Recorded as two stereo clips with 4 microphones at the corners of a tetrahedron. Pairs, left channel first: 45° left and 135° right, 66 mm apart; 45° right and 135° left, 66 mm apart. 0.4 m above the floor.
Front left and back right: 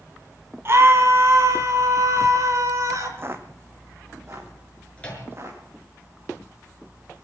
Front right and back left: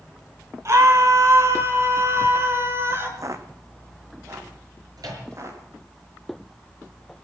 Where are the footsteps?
170° left, 1.5 m; by 5.6 s 175° left, 5 m.